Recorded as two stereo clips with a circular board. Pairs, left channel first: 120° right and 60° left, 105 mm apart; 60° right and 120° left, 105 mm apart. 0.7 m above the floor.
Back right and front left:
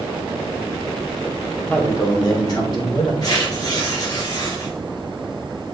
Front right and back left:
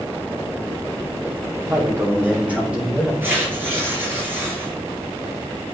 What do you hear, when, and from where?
1.6 s a man speaking: 170° left, 2 m; by 3.1 s 155° right, 3.5 m
3.2 s tearing paper: 170° right, 3.5 m